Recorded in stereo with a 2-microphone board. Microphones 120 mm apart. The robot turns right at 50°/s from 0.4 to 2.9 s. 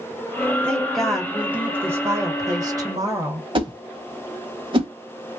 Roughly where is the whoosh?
Right.